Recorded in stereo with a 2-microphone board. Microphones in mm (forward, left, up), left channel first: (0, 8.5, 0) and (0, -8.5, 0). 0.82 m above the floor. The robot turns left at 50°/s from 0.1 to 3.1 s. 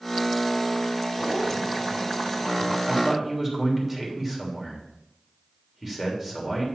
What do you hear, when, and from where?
1.2 s a zipper: 5° right, 4 m; by 2.8 s 85° right, 4 m
2.9 s a man speaking: 25° right (ahead or behind), 3 m; by 6.7 s 15° right (ahead or behind), 3 m